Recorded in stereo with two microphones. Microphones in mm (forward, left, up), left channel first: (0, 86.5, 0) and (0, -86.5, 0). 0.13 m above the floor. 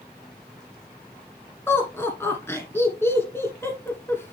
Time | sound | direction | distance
1.7 | laughter | 15° left (ahead or behind) | 1.2 m